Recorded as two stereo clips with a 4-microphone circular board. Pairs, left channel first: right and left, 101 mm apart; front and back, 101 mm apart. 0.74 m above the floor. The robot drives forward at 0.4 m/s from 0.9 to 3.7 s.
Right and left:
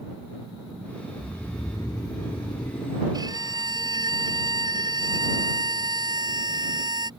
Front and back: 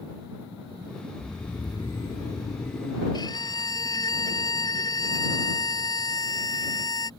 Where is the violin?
45° left.